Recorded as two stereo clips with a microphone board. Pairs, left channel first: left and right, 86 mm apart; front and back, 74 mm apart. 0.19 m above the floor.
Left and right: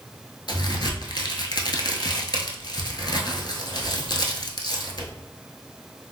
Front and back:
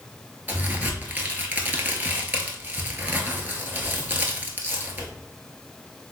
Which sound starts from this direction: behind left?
A crack, at 0.5 s.